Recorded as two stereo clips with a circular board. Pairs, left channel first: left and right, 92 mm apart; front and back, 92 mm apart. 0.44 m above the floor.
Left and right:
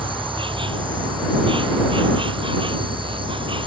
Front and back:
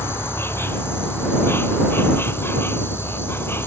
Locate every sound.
0.0 s an insect: 65° right